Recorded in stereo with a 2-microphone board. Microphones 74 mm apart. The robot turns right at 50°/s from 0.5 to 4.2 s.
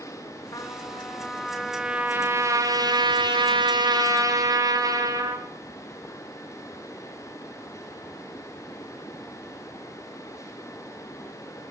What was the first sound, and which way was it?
A trumpet, 125° left.